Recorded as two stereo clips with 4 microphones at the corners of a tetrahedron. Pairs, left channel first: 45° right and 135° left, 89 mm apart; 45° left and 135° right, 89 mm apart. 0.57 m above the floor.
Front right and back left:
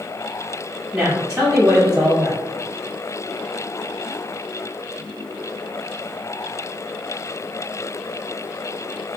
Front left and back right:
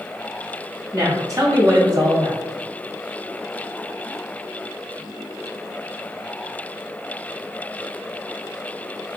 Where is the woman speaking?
150° right, 0.6 m.